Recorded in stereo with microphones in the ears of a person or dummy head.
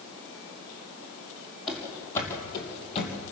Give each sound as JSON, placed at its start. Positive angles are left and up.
{"t": 1.7, "sound": "running footsteps", "side_deg": 0, "distance_m": 3.0}